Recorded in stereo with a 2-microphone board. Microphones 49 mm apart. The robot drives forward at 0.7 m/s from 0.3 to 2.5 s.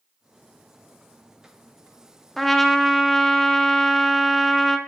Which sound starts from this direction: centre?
A trumpet, at 2.4 s.